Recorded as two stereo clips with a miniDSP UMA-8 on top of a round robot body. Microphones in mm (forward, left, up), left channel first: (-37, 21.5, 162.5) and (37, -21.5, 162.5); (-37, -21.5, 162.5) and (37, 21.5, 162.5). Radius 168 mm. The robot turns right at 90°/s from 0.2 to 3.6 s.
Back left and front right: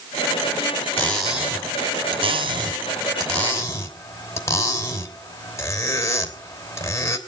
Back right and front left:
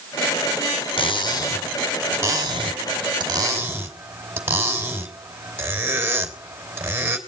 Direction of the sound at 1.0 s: 140° right.